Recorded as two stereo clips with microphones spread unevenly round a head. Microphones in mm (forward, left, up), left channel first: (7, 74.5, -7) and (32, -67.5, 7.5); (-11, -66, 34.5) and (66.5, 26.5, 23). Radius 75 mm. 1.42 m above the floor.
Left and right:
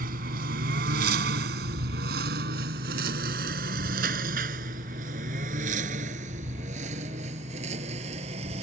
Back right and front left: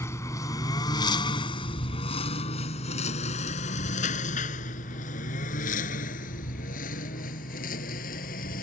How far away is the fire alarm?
No fire alarm in this recording.